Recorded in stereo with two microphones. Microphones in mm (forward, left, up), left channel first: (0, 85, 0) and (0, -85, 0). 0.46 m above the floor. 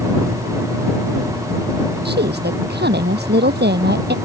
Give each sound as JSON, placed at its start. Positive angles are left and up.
{"t": 2.0, "sound": "a woman speaking", "side_deg": -75}